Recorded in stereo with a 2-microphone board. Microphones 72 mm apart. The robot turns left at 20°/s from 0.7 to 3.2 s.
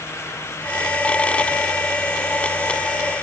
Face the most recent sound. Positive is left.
No sound to turn to.